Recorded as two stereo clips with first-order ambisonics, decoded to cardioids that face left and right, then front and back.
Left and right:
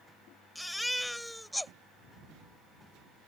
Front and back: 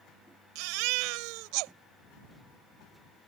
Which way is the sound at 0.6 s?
175° left.